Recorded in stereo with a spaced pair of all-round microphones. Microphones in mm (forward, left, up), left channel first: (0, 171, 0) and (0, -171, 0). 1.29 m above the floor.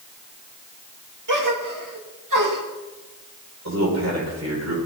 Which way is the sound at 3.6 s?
55° right (ahead or behind).